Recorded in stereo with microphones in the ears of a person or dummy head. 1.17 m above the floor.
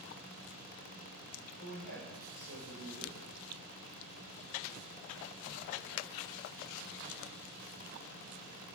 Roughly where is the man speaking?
Right.